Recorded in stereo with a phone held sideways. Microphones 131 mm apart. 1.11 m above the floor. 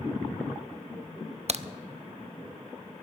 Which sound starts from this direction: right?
A crack, at 1.5 s.